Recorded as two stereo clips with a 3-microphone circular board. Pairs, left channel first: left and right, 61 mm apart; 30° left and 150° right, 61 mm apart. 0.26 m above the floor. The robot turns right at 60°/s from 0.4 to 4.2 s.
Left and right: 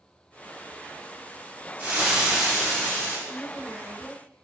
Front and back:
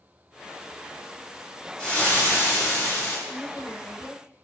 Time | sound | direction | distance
1.8 | frying | 40° right | 1.0 m
3.3 | a woman speaking | 60° left | 1.4 m